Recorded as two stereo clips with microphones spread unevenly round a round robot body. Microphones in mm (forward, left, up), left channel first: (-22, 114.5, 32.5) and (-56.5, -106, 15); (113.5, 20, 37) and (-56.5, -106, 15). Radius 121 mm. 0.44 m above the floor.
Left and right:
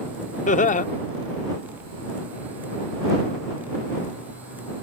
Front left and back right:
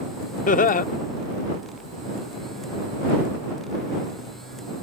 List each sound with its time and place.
0.5 s laughter: 50° left